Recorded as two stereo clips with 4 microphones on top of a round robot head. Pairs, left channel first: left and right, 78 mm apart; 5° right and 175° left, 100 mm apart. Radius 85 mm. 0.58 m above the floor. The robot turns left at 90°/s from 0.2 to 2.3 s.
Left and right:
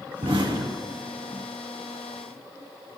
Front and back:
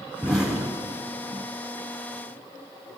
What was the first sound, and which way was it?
An explosion, 80° right.